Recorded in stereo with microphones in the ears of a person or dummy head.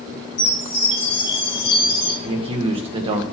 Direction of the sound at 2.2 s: 25° right (ahead or behind).